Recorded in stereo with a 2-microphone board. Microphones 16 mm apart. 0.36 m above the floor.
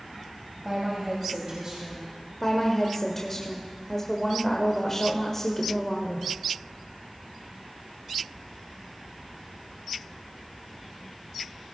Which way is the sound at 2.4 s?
25° left (ahead or behind).